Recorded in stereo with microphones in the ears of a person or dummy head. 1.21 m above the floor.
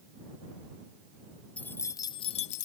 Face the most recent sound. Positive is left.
turn(degrees=45)  # may be behind; listen again after turning